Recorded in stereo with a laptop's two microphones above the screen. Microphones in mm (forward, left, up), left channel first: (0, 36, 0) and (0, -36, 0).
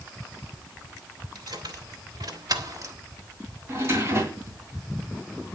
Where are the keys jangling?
80° right, 2.5 m; by 3.0 s 50° right (ahead or behind), 1.2 m.